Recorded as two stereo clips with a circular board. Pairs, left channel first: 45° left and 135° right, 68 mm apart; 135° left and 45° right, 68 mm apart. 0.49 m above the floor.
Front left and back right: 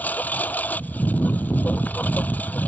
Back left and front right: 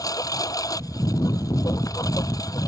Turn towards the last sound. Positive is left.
turn(degrees=110)